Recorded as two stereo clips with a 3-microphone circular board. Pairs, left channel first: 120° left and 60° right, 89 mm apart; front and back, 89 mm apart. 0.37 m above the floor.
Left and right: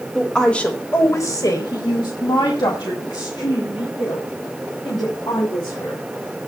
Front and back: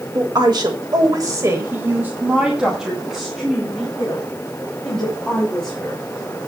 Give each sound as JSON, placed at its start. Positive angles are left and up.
{"t": 0.1, "sound": "a woman speaking", "azimuth_deg": -155, "distance_m": 2.0}